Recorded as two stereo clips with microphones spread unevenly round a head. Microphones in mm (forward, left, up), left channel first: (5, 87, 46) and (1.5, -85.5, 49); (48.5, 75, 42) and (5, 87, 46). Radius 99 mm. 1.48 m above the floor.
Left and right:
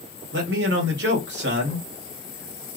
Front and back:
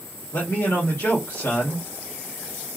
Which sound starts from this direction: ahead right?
A man speaking, at 0.3 s.